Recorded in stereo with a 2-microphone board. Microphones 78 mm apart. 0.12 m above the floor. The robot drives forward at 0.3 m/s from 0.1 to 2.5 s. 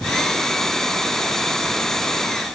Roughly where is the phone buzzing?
I don't hear a phone buzzing.